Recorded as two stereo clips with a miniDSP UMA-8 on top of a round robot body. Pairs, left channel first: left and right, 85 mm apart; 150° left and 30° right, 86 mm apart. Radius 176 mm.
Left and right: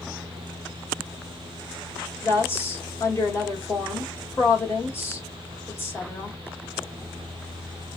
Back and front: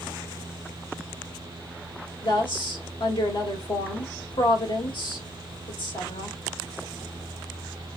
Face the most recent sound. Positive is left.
turn(degrees=145)